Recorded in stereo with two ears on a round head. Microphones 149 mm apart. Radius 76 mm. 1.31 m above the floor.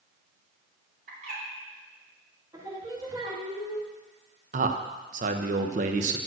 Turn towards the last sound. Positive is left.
turn(degrees=-45)  # may be behind; listen again after turning